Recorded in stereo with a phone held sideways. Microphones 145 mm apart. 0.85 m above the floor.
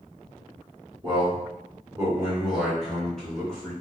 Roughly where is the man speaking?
Right.